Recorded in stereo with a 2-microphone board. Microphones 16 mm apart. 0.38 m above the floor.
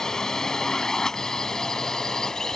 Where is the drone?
30° left (ahead or behind).